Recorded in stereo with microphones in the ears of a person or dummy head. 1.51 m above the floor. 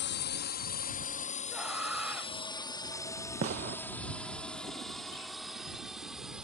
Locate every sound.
0.0 s a drone: 55° left (ahead or behind); by 6.5 s 10° right (ahead or behind)
1.5 s a scream: 10° right (ahead or behind)
3.4 s a gunshot: 50° right (ahead or behind)